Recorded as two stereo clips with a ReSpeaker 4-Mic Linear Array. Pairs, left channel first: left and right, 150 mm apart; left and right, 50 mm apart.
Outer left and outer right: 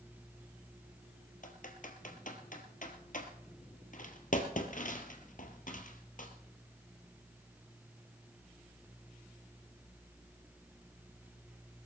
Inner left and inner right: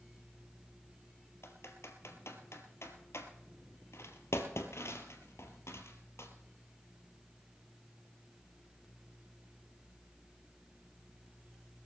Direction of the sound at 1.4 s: 60° left (ahead or behind).